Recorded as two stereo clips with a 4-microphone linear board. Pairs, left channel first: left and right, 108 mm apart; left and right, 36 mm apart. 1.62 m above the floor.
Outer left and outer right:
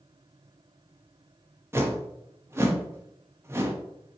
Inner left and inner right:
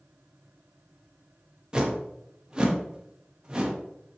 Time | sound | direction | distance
1.7 | a whoosh | 25° right (ahead or behind) | 0.7 m